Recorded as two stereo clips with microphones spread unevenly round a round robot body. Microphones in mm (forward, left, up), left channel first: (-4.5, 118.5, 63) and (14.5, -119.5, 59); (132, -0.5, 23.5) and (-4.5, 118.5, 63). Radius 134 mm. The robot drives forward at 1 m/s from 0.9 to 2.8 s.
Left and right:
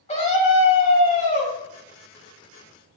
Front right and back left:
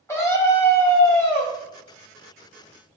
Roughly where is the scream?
Ahead left.